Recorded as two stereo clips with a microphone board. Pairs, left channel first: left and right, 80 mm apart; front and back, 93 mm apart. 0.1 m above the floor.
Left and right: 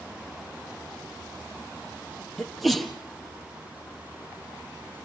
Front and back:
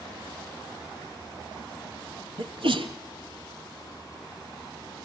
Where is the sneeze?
Straight behind, 3 m.